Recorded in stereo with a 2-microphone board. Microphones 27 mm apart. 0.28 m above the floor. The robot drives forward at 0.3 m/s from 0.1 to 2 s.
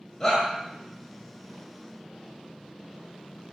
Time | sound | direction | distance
0.2 | a shout | 20° left (ahead or behind) | 1.1 m